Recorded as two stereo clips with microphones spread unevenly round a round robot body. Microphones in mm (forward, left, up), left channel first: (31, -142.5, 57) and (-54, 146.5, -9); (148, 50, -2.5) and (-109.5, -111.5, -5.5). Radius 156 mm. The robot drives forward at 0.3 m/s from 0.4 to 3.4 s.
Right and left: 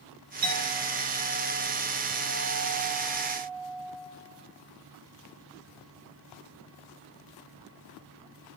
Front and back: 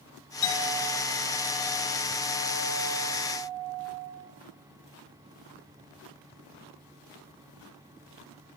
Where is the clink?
45° left, 2.5 m; by 4.1 s 65° left, 1.9 m.